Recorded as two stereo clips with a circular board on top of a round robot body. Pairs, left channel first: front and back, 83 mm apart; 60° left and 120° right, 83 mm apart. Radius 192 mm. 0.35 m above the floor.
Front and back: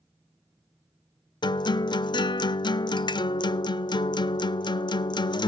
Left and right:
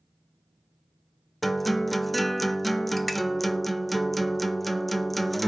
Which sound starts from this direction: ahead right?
A guitar, at 1.4 s.